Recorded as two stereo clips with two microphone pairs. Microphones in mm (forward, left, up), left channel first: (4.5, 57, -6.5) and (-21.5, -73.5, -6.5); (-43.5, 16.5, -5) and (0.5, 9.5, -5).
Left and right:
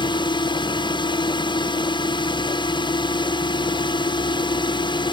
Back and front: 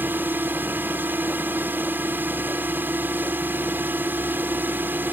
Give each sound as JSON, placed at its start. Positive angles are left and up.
{"t": 0.0, "sound": "a drone", "azimuth_deg": 30}